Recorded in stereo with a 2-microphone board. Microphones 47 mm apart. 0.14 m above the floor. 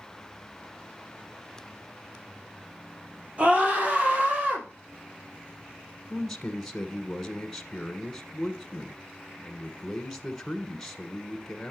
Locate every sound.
3.4 s a scream: 30° right (ahead or behind), 3.5 m
6.1 s a man speaking: 10° left (ahead or behind), 1.1 m